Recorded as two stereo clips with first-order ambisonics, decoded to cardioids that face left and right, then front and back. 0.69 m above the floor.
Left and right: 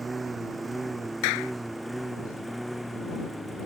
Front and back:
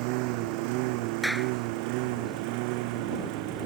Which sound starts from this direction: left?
A clap, at 1.2 s.